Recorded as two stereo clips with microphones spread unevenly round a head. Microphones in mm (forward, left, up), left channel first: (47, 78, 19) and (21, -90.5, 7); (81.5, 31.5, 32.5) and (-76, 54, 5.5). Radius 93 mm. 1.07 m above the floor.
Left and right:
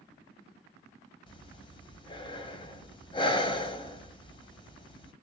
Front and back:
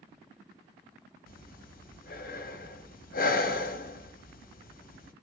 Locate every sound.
1.3 s breathing: 20° left, 1.0 m